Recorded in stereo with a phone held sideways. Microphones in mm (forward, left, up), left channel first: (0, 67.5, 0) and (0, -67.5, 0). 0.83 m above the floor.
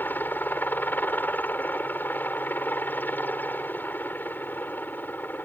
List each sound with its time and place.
0.0 s a helicopter: 15° left (ahead or behind)